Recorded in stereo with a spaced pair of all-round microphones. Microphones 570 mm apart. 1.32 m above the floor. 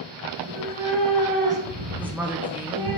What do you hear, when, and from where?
0.3 s a cat meowing: 50° right (ahead or behind), 2.5 m; by 3.0 s 65° right (ahead or behind), 2.5 m
2.0 s a woman speaking: 5° right (ahead or behind), 0.7 m